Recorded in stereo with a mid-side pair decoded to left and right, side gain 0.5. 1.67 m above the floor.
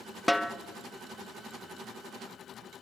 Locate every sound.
0.3 s a snare drum: 5° left, 1.0 m